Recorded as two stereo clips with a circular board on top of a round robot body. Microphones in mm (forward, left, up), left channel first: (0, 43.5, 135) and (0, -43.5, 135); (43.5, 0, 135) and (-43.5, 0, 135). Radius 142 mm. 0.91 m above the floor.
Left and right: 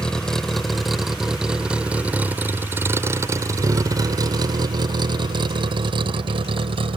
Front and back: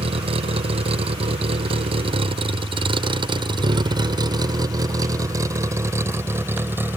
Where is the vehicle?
175° left; by 7.0 s 110° right.